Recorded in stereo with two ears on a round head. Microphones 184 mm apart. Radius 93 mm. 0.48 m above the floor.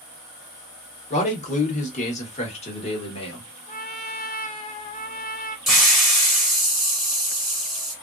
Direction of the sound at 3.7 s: 40° left (ahead or behind).